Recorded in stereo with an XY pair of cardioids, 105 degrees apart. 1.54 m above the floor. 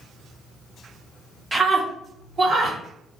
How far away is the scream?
About 1.1 m.